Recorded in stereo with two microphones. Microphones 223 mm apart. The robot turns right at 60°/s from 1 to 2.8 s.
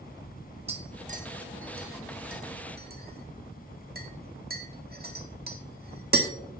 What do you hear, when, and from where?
0.7 s tapping: 25° right (ahead or behind), 1.5 m; by 6.3 s 45° right (ahead or behind), 1.5 m